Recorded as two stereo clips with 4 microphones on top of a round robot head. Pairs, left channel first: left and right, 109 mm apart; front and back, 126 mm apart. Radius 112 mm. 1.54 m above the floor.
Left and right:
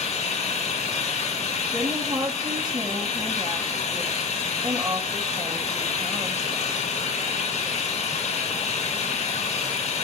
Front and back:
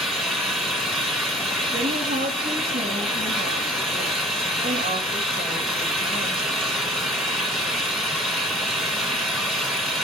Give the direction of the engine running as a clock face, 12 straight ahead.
9 o'clock.